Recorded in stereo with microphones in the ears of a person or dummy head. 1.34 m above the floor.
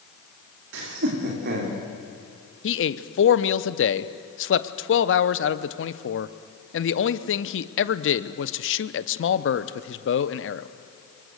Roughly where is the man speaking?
Left.